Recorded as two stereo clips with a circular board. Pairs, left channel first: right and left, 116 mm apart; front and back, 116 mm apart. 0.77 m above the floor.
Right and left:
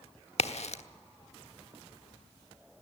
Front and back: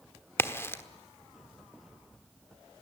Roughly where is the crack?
Right.